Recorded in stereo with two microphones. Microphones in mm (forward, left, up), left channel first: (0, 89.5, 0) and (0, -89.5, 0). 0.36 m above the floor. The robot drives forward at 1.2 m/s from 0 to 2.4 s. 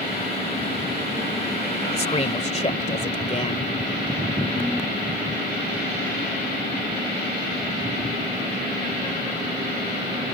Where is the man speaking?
35° left (ahead or behind).